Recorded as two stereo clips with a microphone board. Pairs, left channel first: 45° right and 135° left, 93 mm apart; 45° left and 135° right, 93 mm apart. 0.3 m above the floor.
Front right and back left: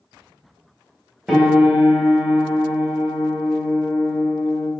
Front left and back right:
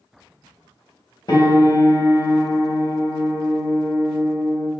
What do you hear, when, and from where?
1.3 s a piano: 50° left, 1.0 m